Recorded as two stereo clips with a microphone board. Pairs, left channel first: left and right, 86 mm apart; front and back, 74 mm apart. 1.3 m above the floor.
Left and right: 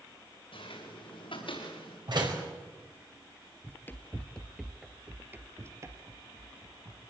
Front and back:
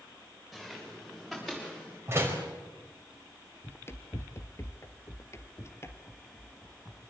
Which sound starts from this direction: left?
Footsteps, at 0.5 s.